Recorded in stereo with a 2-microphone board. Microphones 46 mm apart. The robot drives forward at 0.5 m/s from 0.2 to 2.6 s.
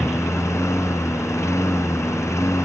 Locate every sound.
0.0 s a lawn mower: 80° left; by 2.7 s 85° left